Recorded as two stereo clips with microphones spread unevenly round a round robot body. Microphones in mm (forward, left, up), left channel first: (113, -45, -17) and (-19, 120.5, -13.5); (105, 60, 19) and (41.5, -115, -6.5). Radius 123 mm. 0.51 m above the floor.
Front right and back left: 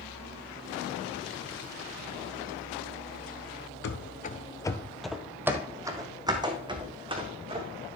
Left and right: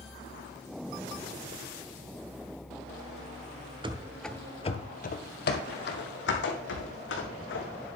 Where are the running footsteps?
45° right, 0.7 m; by 7.7 s 65° left, 3 m.